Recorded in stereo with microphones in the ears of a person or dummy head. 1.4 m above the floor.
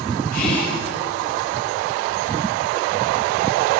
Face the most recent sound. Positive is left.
turn(degrees=50)  # may be behind; listen again after turning